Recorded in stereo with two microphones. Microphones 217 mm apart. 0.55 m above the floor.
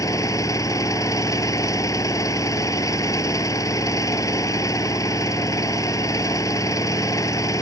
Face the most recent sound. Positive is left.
turn(degrees=15)  # may be behind; listen again after turning